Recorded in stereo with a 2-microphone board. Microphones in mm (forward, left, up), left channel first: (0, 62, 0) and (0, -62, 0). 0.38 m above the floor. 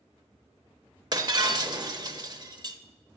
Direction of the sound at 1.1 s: 35° right (ahead or behind).